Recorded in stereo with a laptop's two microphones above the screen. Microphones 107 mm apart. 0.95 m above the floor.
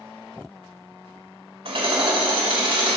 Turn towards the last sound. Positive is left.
turn(degrees=-65)  # may be behind; listen again after turning